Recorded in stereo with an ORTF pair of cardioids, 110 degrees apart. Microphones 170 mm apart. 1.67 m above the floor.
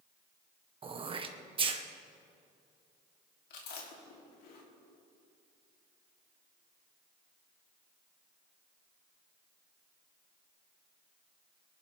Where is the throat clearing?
30° right, 1.4 m.